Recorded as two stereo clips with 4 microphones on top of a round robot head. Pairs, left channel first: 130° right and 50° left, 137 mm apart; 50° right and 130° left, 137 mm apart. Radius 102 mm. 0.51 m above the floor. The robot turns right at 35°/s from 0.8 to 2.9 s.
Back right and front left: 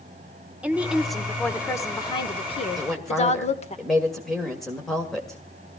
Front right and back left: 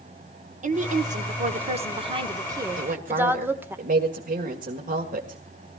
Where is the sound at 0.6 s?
130° left, 1.7 m; by 3.8 s 155° right, 1.7 m.